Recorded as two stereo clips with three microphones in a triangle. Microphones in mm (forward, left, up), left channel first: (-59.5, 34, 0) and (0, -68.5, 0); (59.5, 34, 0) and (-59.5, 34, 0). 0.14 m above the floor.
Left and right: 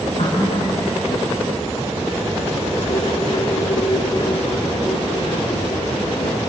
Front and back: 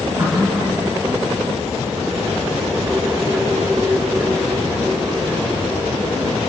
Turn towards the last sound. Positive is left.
turn(degrees=115)